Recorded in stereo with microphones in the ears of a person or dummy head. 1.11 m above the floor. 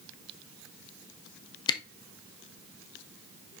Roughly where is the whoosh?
I don't hear a whoosh.